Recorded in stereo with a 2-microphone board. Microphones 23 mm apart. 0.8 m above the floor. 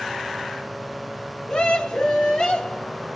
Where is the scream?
45° left (ahead or behind), 4.5 m.